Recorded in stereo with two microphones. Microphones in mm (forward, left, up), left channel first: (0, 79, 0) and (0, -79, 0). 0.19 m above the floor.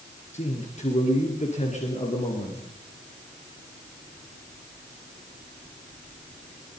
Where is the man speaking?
45° left (ahead or behind), 4 m.